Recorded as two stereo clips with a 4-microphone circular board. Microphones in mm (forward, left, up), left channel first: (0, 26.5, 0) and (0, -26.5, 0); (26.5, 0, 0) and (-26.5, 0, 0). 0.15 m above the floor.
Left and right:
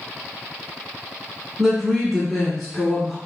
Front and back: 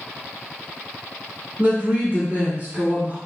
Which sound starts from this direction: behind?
A woman speaking, at 1.6 s.